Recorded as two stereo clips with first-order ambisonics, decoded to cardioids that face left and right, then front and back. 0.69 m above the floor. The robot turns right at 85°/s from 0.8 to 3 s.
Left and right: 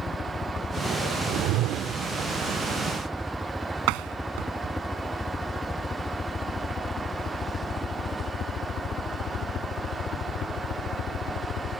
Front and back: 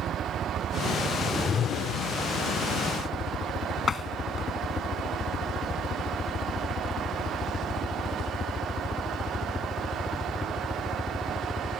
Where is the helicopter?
145° left; by 11.8 s 75° left.